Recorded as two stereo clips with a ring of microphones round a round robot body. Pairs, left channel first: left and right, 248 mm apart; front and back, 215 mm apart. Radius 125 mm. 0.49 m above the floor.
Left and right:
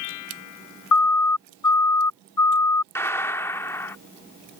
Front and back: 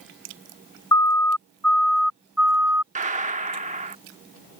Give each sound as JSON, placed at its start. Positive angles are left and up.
{"t": 0.9, "sound": "a siren", "azimuth_deg": 75}
{"t": 3.0, "sound": "a gunshot", "azimuth_deg": 165}